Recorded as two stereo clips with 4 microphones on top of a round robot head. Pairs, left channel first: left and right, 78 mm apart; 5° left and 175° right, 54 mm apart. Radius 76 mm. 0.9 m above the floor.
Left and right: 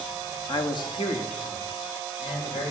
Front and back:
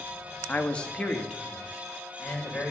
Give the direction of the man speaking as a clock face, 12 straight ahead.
10 o'clock.